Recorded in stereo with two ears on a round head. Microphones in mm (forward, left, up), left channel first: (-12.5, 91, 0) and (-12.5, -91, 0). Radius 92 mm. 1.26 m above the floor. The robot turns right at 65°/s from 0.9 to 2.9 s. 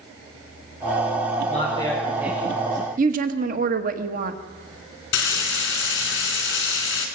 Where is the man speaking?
140° left, 5 m; by 2.9 s 130° right, 5 m.